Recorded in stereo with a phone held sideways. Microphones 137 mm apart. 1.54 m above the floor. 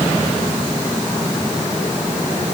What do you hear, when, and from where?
Only background noise.